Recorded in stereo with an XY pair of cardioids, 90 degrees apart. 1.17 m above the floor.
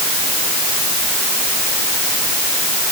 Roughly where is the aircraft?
I don't hear an aircraft.